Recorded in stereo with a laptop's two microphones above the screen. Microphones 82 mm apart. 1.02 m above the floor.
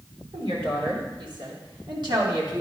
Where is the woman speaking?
80° right, 3 m; by 2.6 s 55° right (ahead or behind), 2.5 m.